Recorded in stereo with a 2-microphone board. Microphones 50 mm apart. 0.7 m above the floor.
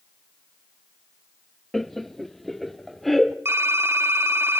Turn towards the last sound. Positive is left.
turn(degrees=-55)  # may be behind; listen again after turning